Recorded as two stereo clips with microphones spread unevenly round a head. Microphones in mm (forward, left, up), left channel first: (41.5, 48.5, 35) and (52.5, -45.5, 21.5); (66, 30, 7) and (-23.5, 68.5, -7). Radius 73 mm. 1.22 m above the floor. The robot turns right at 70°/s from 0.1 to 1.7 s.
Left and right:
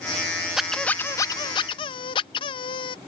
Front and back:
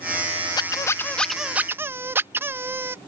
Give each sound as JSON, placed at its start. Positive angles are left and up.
{"t": 0.6, "sound": "a squeak", "azimuth_deg": 5}